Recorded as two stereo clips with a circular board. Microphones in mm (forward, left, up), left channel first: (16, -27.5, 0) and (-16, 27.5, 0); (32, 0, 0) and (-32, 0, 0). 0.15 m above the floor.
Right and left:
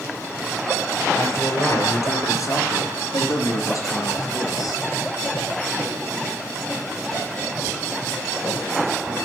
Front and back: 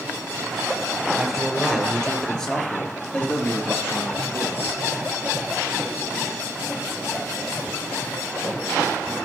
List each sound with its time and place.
1.2 s a man speaking: 90° right, 3 m; by 4.8 s 55° right, 3.5 m